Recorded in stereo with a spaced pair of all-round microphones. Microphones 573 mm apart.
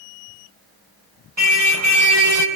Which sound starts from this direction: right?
A car horn, at 1.4 s.